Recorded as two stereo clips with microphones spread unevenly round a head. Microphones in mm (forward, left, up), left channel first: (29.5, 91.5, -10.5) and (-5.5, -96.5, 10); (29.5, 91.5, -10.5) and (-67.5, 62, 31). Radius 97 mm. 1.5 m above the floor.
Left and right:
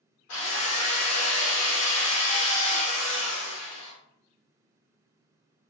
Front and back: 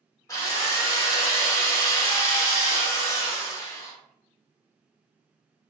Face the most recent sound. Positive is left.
turn(degrees=80)